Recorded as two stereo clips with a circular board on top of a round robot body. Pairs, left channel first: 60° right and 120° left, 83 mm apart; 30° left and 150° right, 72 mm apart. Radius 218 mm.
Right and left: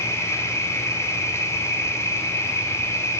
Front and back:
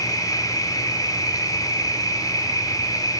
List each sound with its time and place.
0.0 s an insect: 5° right, 2 m